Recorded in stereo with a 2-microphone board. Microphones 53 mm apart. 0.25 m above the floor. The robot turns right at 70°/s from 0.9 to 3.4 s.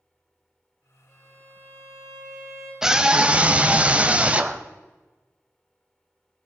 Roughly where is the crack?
No crack in this recording.